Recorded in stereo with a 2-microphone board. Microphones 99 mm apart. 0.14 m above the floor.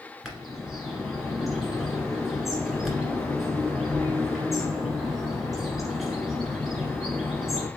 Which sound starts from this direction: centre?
A bird, at 0.2 s.